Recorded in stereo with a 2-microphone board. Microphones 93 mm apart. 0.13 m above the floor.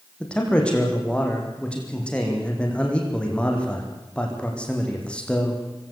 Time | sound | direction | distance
0.2 | a man speaking | 10° left (ahead or behind) | 6.5 m